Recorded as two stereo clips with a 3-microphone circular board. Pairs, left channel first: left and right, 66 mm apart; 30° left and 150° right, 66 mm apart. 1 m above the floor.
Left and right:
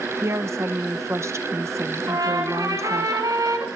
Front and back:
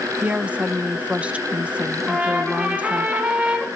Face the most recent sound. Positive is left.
turn(degrees=-85)